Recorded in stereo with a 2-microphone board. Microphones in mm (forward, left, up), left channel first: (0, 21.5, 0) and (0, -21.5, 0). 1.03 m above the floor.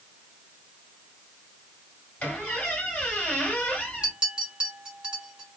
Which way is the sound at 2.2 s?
30° left (ahead or behind).